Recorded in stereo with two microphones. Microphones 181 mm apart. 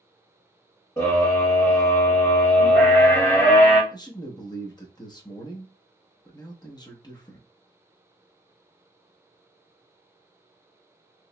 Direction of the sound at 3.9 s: 25° left (ahead or behind).